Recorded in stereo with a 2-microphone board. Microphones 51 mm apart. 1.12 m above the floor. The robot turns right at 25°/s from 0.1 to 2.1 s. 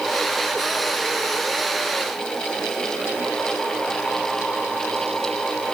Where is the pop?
No pop in this recording.